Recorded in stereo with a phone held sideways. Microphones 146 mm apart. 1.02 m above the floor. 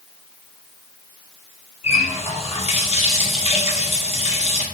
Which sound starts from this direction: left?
A running tap, at 1.8 s.